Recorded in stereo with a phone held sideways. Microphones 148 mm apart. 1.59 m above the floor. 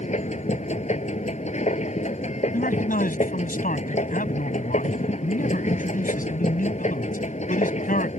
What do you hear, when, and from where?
0.0 s a machine running: 55° left (ahead or behind)
2.5 s a man speaking: 80° left